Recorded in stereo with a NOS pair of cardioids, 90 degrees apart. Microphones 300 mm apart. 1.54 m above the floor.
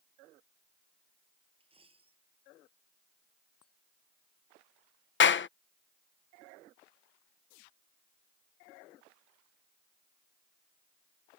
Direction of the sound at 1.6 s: 20° right.